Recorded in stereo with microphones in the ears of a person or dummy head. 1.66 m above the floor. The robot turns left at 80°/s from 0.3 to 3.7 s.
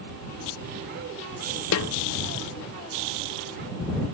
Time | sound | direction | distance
1.7 | a snare drum | 80° left | ?